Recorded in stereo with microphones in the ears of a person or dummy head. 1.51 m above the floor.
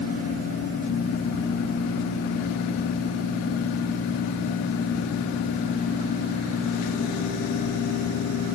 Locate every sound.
Only background noise.